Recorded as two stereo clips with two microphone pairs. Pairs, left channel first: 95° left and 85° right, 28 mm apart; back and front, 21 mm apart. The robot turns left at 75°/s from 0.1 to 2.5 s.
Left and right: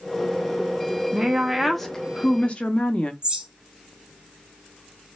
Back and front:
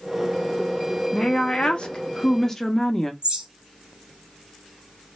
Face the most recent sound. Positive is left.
turn(degrees=-30)